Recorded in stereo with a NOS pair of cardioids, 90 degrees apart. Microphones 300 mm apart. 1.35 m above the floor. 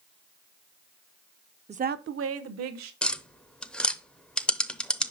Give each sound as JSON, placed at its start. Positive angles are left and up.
{"t": 1.7, "sound": "a woman speaking", "azimuth_deg": -20, "distance_m": 0.6}
{"t": 3.0, "sound": "tapping", "azimuth_deg": 5, "distance_m": 0.7}